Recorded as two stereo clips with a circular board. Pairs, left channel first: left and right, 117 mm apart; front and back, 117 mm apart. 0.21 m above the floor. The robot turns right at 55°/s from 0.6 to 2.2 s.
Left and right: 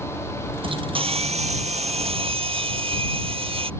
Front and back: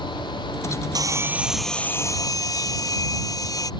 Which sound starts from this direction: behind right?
Sawing, at 0.9 s.